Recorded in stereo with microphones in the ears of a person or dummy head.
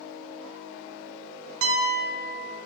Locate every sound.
1.6 s a piano: 80° right, 1.0 m